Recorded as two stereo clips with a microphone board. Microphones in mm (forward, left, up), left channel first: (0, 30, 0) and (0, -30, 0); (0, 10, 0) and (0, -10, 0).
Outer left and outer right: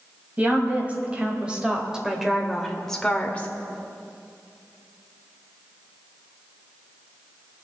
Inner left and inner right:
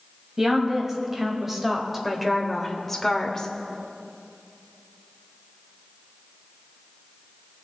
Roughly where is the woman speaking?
Right.